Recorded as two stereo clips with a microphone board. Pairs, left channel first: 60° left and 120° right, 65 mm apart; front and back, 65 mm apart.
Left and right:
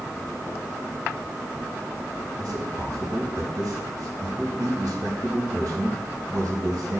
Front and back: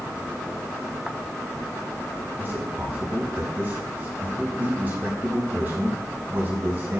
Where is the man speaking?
125° right, 4 m.